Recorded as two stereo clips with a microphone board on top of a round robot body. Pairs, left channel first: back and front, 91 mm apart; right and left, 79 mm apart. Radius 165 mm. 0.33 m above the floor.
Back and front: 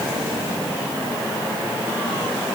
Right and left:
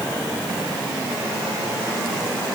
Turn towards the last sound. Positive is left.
No sound to turn to.